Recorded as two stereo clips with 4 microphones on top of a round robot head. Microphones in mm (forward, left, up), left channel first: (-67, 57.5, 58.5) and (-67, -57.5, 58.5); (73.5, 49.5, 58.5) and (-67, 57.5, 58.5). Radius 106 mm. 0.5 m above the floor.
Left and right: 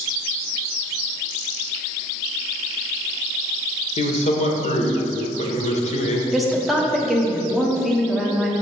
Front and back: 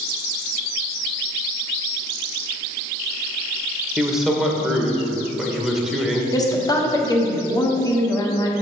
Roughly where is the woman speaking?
Ahead.